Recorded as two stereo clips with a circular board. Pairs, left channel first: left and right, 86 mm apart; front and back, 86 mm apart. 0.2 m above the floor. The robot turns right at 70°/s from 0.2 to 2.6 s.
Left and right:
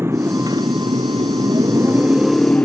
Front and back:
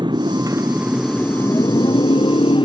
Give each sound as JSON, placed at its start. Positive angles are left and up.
{"t": 0.0, "sound": "a motorcycle", "azimuth_deg": -150}